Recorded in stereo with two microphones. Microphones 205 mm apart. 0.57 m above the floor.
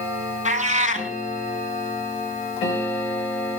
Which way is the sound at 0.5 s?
35° right (ahead or behind).